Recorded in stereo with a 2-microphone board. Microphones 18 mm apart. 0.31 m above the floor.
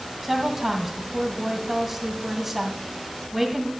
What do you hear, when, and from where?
0.2 s a woman speaking: 15° right (ahead or behind), 1.9 m